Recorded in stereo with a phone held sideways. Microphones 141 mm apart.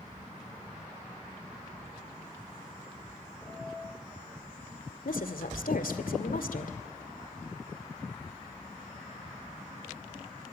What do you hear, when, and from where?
3.4 s a piano: 15° left (ahead or behind), 7.5 m
5.0 s a woman speaking: 80° left, 2 m